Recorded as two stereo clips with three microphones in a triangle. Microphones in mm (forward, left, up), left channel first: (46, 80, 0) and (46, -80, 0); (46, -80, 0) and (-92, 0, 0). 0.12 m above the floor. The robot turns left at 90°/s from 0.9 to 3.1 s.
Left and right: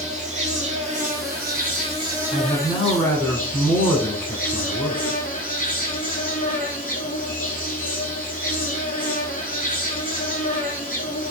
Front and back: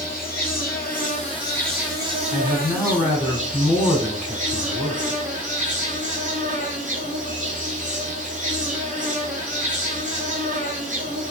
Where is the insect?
45° right, 1.0 m; by 11.3 s 115° left, 1.0 m.